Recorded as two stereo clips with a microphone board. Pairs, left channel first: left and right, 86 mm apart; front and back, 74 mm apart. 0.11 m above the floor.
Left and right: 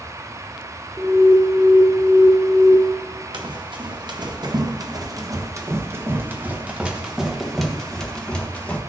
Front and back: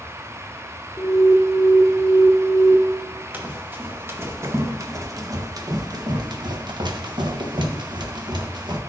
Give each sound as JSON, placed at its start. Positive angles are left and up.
{"t": 1.0, "sound": "an alarm", "azimuth_deg": -75, "distance_m": 1.0}
{"t": 3.3, "sound": "running footsteps", "azimuth_deg": -115, "distance_m": 2.0}